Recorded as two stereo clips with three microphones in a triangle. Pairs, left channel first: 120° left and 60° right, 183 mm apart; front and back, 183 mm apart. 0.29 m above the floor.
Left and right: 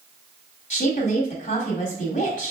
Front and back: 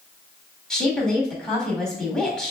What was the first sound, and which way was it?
A woman speaking, 85° left.